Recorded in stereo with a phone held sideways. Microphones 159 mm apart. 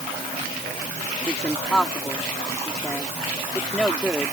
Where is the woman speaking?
5° left (ahead or behind).